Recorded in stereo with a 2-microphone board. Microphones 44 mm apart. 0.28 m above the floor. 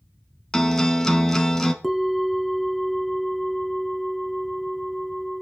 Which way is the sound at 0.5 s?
10° left (ahead or behind).